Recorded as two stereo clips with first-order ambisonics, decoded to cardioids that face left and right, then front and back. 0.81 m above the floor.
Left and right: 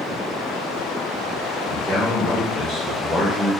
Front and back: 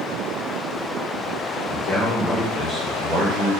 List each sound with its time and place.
1.7 s a man speaking: 10° right, 1.1 m; by 3.5 s 175° left, 1.2 m